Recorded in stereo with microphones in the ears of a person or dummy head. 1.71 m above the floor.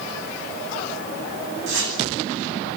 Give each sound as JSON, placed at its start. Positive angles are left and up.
{"t": 1.7, "sound": "a whoosh", "side_deg": -75, "distance_m": 9.0}